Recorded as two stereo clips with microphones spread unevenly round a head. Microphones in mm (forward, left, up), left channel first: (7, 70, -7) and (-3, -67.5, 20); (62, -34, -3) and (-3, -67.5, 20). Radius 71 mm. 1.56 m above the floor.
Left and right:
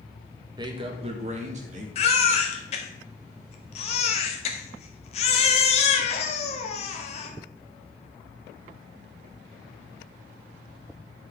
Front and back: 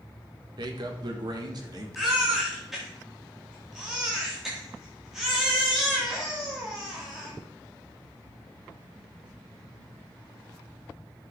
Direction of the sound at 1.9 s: 135° left.